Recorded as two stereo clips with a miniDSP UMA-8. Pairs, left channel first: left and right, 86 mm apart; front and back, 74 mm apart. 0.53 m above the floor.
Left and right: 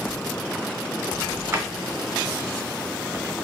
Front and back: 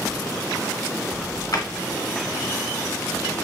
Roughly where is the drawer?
Ahead right.